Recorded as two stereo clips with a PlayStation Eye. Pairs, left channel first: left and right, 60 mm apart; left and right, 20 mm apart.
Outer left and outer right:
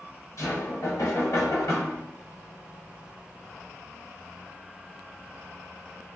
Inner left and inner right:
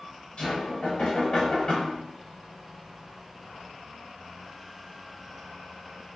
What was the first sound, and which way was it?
Knocking, 60° left (ahead or behind).